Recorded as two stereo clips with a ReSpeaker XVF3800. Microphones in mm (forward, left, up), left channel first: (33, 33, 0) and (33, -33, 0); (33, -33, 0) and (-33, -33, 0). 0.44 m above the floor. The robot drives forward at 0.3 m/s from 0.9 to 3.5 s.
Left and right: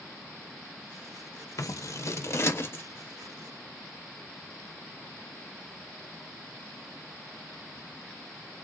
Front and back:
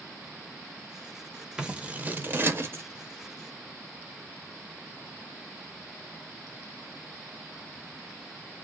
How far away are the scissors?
About 0.5 m.